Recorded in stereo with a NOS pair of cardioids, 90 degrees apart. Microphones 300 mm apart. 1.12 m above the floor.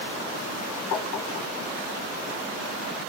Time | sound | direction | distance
0.9 | tapping | 65° left | 1.8 m